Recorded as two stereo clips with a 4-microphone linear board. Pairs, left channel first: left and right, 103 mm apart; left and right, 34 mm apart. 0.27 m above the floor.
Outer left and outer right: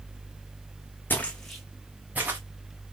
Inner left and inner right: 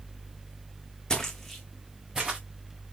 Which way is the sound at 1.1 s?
20° left (ahead or behind).